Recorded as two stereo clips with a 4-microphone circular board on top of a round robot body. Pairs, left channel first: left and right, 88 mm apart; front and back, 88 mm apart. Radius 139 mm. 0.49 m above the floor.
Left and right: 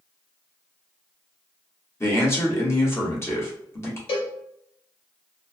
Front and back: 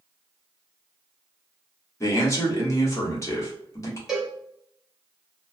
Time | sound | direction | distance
2.0 | a man speaking | 40° left | 1.5 m
4.1 | a cowbell | 95° left | 0.6 m